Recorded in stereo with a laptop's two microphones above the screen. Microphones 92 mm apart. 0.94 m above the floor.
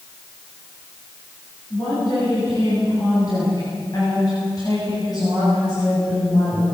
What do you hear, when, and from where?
1.7 s a woman speaking: 45° left (ahead or behind), 9 m